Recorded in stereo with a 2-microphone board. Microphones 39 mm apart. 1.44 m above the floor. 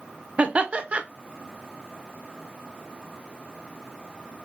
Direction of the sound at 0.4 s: 35° right (ahead or behind).